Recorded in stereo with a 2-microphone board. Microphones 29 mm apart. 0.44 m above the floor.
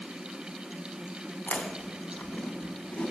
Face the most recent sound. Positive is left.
turn(degrees=65)  # may be behind; listen again after turning